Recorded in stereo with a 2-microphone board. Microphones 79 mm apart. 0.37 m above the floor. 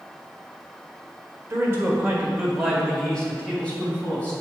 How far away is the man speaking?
About 1.7 m.